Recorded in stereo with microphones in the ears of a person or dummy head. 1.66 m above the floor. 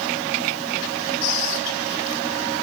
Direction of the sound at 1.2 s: 80° left.